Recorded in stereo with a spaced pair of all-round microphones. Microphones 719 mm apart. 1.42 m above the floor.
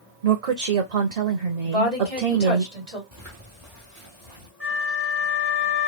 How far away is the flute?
About 1.8 m.